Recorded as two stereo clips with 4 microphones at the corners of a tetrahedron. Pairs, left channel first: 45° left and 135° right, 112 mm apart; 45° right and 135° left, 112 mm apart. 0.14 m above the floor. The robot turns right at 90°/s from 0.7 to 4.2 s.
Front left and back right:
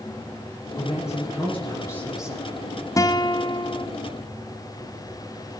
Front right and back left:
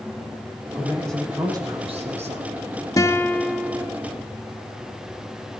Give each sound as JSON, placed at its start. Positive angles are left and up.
{"t": 0.8, "sound": "a man speaking", "azimuth_deg": 10, "distance_m": 4.5}
{"t": 3.0, "sound": "a guitar", "azimuth_deg": -5, "distance_m": 1.0}